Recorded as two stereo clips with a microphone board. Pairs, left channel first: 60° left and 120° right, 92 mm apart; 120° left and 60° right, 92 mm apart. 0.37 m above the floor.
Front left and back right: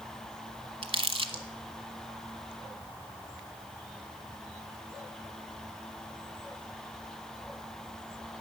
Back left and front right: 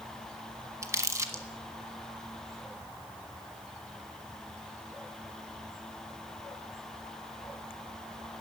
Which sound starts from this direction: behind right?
Crumpling, at 0.8 s.